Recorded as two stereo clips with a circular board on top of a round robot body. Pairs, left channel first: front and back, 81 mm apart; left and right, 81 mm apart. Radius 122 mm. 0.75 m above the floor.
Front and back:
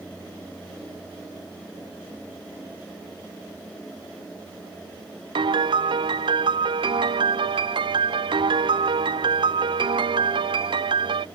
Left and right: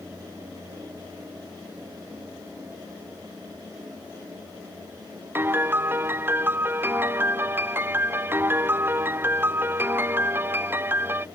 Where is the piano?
155° right.